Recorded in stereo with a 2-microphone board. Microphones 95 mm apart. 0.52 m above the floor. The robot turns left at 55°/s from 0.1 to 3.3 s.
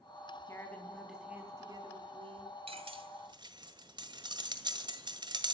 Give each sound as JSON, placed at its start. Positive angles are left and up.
{"t": 0.5, "sound": "a woman speaking", "azimuth_deg": 30, "distance_m": 4.0}
{"t": 2.7, "sound": "cutlery clinking", "side_deg": -75, "distance_m": 1.5}